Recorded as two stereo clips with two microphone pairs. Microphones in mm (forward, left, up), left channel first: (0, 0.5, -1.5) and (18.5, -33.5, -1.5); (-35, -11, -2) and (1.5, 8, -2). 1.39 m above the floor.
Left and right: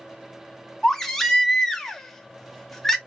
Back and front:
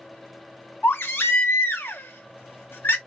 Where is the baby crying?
160° right, 0.7 m.